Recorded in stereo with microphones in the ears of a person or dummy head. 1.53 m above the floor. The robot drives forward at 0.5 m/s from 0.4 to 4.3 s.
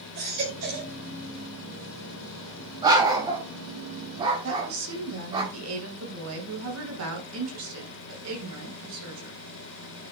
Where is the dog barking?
20° right (ahead or behind), 3.5 m; by 5.4 s 25° right (ahead or behind), 3 m.